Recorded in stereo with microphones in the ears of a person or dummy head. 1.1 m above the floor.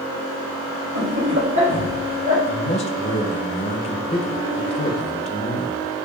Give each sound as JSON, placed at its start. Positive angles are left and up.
{"t": 0.9, "sound": "laughter", "side_deg": -60, "distance_m": 1.3}
{"t": 2.5, "sound": "a man speaking", "side_deg": 35, "distance_m": 0.6}